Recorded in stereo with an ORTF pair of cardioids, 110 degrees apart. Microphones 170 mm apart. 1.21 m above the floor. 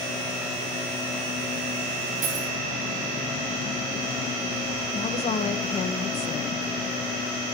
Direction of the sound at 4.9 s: 40° left.